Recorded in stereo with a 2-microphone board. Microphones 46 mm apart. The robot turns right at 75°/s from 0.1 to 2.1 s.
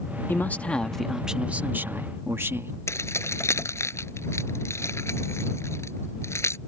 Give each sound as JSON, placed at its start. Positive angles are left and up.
{"t": 0.3, "sound": "a man speaking", "azimuth_deg": 125}
{"t": 2.9, "sound": "keys jangling", "side_deg": 85}